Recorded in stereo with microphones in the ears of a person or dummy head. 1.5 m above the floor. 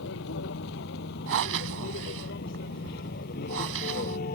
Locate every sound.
0.0 s a vehicle: 60° left (ahead or behind); by 4.4 s 40° left (ahead or behind)
1.3 s breathing: 70° right (ahead or behind)